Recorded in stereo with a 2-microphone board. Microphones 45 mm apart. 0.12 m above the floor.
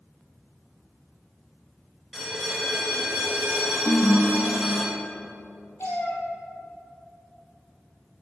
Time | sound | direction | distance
2.1 | a bell | 10° right (ahead or behind) | 1.5 m
3.9 | a ringtone | 45° left (ahead or behind) | 1.1 m
5.8 | a cat meowing | 70° left (ahead or behind) | 2.0 m